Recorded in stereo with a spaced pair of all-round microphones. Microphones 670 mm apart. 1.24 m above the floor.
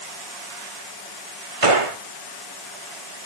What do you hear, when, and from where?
1.6 s a gunshot: 50° right (ahead or behind), 1.3 m